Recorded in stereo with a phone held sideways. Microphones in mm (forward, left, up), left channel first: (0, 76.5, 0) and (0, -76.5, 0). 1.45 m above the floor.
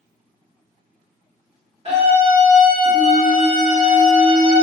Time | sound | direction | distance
1.9 | a scream | 40° right (ahead or behind) | 1.7 m